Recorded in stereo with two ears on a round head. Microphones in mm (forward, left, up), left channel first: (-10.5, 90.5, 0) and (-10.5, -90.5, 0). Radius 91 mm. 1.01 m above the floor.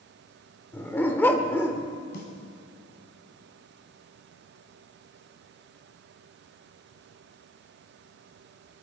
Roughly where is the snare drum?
Left.